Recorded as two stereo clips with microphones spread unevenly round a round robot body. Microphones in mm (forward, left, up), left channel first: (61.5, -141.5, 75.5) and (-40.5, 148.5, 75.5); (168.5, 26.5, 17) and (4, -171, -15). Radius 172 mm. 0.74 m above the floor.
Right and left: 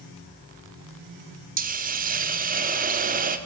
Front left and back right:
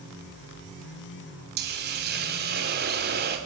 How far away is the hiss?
About 1.8 m.